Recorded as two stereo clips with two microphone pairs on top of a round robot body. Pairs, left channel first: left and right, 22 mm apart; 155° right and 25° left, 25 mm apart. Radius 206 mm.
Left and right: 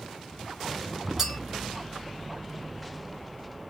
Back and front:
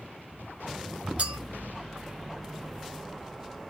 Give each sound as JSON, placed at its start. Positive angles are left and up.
{"t": 1.2, "sound": "a clink", "azimuth_deg": -10, "distance_m": 0.7}